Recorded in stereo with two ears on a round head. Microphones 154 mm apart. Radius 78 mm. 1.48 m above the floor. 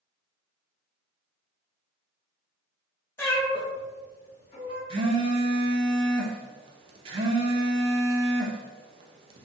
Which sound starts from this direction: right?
A phone buzzing, at 4.9 s.